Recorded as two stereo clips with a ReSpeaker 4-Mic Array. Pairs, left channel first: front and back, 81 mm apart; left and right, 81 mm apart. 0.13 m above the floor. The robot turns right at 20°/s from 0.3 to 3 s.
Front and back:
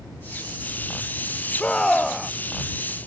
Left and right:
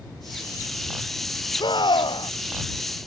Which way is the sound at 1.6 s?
75° left.